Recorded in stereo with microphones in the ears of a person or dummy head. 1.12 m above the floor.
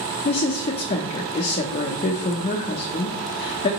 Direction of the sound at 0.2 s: 40° left (ahead or behind).